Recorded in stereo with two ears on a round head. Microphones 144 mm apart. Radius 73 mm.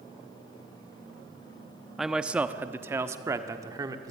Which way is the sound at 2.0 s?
Centre (ahead or behind).